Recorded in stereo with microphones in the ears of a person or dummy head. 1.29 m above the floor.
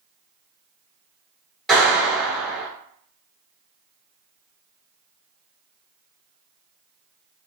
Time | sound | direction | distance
1.7 | a clap | centre (ahead or behind) | 1.5 m